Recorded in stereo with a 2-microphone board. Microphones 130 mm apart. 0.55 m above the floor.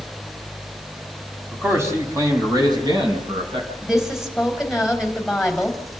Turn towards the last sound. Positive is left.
turn(degrees=-5)  # may be behind; listen again after turning